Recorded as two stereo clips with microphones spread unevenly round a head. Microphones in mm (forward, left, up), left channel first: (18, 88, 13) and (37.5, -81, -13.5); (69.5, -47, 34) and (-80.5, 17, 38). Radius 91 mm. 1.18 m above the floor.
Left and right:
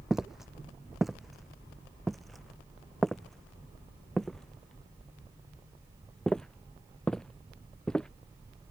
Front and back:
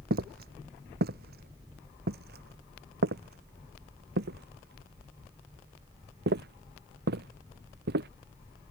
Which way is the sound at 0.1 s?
175° right.